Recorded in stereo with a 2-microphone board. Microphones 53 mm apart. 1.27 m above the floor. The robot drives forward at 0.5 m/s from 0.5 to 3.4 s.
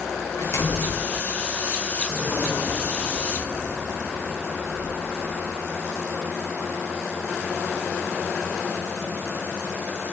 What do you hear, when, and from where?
0.4 s a door slam: 65° left (ahead or behind), 4 m; by 1.0 s 70° left (ahead or behind), 4 m
2.0 s a whoosh: 20° left (ahead or behind), 6.5 m; by 5.6 s 15° left (ahead or behind), 7 m